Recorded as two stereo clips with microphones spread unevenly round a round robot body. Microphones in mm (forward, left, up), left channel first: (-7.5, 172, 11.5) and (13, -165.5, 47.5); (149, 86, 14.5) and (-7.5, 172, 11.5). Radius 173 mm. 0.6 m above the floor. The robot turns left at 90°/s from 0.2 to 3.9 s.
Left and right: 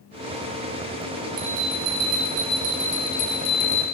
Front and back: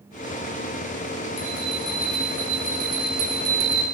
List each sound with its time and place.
1.4 s a bell: 35° right, 1.7 m; by 3.8 s 105° left, 1.7 m